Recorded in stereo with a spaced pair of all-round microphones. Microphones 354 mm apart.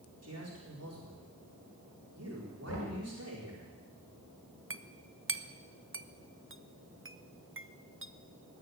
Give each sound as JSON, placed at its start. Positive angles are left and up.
{"t": 0.2, "sound": "a man speaking", "side_deg": -45, "distance_m": 4.5}
{"t": 2.7, "sound": "knocking", "side_deg": 45, "distance_m": 6.0}
{"t": 4.7, "sound": "a clink", "side_deg": -35, "distance_m": 0.7}